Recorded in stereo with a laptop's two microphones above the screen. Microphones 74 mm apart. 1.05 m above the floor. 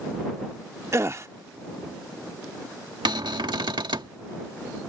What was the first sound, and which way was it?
A gasp, 35° right (ahead or behind).